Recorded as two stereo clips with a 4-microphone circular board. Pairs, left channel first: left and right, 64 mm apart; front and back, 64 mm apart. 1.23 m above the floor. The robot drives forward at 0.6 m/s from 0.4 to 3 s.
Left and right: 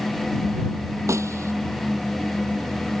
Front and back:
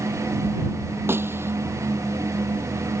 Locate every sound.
1.1 s a snare drum: 130° right